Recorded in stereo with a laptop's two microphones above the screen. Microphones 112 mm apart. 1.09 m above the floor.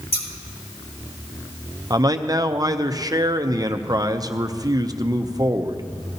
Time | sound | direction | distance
0.1 | scissors | 60° left (ahead or behind) | 3.5 m
1.9 | a man speaking | 35° right (ahead or behind) | 0.5 m